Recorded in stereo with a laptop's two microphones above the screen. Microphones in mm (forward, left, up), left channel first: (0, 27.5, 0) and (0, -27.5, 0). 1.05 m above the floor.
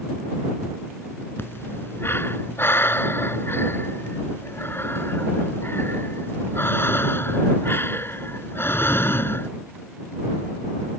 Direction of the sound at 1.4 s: 45° left (ahead or behind).